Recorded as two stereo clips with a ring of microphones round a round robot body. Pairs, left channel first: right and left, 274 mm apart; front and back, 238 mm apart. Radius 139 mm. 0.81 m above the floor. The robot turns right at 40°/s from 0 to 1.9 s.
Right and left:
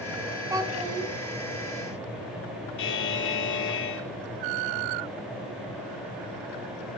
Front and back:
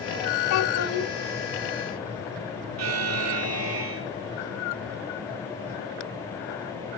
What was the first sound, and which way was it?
A child speaking, 10° left.